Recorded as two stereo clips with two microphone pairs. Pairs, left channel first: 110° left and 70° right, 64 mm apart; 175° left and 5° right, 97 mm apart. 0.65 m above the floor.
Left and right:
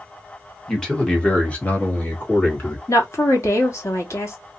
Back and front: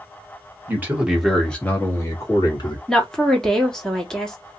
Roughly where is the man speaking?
Ahead left.